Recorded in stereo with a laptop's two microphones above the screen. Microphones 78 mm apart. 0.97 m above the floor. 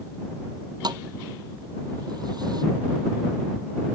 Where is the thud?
60° right (ahead or behind).